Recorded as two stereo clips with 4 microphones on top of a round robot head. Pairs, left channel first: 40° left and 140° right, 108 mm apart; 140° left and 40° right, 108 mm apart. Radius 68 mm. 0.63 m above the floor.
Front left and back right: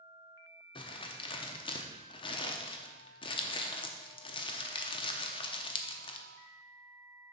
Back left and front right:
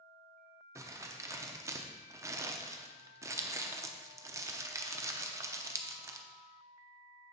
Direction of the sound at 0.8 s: 15° left.